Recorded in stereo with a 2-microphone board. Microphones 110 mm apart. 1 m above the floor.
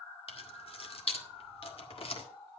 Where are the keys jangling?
65° left (ahead or behind), 1.7 m.